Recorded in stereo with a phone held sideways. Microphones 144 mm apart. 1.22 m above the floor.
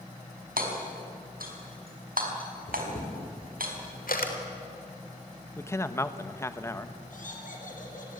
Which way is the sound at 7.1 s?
65° left (ahead or behind).